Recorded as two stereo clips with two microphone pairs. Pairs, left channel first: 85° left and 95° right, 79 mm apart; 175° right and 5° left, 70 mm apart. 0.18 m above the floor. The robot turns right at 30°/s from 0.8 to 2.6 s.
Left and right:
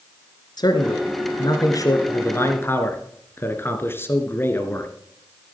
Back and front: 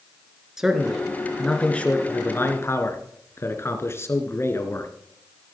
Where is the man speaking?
85° left, 2 m; by 4.9 s 140° left, 2 m.